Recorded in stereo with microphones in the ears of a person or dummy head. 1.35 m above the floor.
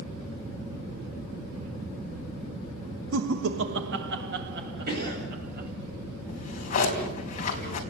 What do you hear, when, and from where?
3.1 s laughter: 75° right (ahead or behind), 1.6 m; by 5.7 s 50° right (ahead or behind), 4.5 m
4.9 s a cough: 60° right (ahead or behind), 8.5 m
6.3 s a drawer: 35° left (ahead or behind), 4 m